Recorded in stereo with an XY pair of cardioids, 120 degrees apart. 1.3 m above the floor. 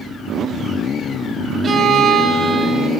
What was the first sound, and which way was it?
A violin, 35° right.